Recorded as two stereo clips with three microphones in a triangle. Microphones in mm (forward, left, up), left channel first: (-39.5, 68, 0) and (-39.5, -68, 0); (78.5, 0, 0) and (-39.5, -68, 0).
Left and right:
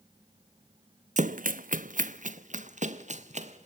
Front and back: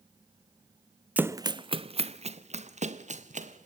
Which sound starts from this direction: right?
Running footsteps, at 1.2 s.